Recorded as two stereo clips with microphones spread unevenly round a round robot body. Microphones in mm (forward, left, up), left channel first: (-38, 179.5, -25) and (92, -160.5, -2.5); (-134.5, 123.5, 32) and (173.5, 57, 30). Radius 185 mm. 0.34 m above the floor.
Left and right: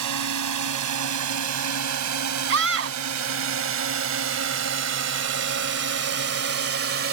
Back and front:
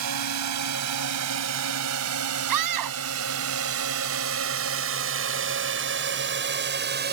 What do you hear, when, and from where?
0.0 s a drone: 35° right; by 7.1 s 45° right
2.5 s a scream: 20° right